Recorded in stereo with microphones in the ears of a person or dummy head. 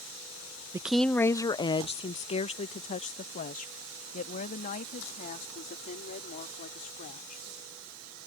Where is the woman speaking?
15° right (ahead or behind); by 7.4 s 45° left (ahead or behind).